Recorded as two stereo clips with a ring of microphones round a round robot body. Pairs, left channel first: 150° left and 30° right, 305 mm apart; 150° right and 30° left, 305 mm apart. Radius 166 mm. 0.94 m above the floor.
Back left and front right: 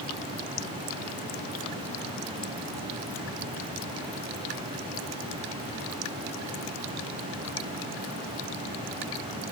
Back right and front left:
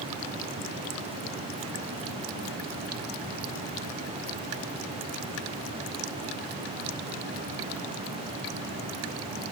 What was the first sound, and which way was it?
Only background noise.